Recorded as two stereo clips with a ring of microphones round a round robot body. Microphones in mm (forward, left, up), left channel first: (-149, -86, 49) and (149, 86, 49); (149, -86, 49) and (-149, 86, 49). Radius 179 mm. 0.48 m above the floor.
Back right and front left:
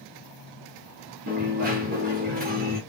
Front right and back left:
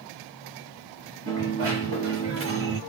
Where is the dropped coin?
95° left, 4.5 m.